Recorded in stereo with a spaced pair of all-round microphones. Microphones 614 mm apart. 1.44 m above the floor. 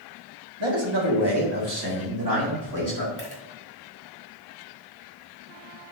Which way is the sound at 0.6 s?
45° right (ahead or behind).